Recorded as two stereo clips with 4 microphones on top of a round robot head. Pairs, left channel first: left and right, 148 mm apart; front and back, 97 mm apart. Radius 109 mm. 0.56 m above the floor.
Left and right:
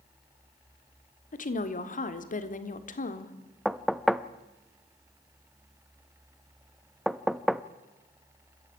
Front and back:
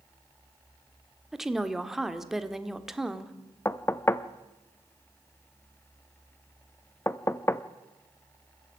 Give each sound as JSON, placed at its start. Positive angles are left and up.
{"t": 1.3, "sound": "a woman speaking", "azimuth_deg": 95, "distance_m": 1.9}
{"t": 3.6, "sound": "knocking", "azimuth_deg": 0, "distance_m": 0.9}